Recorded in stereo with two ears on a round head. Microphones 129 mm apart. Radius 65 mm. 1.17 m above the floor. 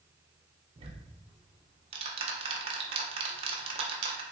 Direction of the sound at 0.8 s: 40° right (ahead or behind).